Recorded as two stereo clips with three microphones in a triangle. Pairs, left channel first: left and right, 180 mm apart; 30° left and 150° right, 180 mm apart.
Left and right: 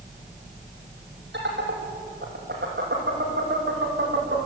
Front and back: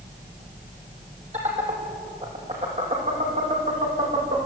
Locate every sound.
1.3 s laughter: 100° right, 6.5 m; by 4.4 s 105° right, 7.5 m